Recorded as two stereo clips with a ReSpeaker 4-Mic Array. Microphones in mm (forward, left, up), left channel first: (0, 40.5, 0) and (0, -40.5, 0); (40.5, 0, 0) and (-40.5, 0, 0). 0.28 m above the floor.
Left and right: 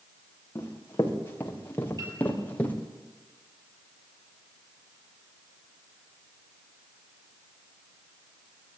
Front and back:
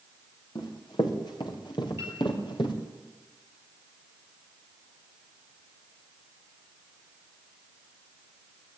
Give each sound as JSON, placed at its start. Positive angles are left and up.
{"t": 0.6, "sound": "running footsteps", "azimuth_deg": 30, "distance_m": 6.0}
{"t": 2.0, "sound": "a piano", "azimuth_deg": -125, "distance_m": 7.0}